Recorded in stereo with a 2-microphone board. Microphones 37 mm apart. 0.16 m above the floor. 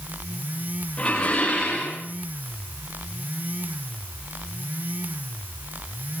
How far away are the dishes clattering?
About 10 m.